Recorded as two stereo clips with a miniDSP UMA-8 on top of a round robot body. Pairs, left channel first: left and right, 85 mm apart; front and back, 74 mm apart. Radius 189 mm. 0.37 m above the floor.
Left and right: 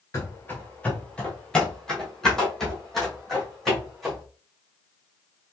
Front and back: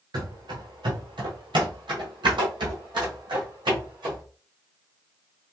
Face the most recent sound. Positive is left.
turn(degrees=180)